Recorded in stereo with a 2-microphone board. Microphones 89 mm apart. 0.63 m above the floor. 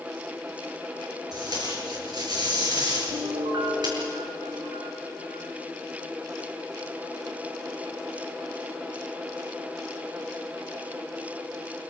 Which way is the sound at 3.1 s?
65° right (ahead or behind).